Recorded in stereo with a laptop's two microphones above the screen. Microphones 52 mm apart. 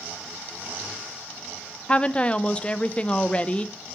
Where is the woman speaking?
25° left (ahead or behind), 0.7 m.